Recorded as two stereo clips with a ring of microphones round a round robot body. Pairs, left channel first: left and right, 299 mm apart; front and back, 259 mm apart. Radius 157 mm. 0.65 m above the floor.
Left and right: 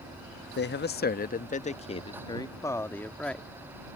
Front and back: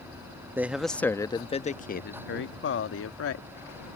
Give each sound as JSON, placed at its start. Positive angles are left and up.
{"t": 0.6, "sound": "a man speaking", "azimuth_deg": 105}